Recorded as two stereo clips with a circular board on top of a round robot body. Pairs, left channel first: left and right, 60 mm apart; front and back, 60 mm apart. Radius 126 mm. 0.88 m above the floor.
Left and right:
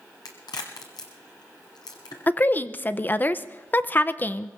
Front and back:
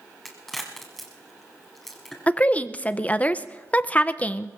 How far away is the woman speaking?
About 0.7 m.